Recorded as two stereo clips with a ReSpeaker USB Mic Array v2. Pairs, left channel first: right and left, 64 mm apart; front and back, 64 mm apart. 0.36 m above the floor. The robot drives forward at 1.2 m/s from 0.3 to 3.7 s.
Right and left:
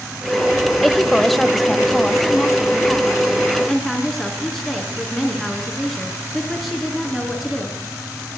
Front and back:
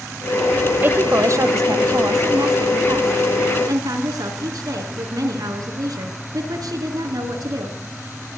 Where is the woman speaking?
175° right, 1.1 m; by 7.8 s straight behind, 4 m.